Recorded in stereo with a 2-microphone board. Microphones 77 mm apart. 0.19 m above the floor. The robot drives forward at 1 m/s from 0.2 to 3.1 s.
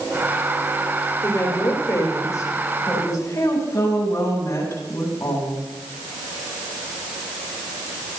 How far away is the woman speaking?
About 9 m.